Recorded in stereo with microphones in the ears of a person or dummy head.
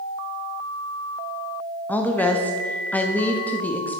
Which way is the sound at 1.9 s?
10° left (ahead or behind).